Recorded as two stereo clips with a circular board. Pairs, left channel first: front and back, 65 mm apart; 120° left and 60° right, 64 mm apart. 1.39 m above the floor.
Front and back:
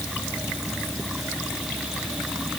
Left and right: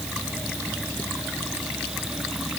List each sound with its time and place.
Only background noise.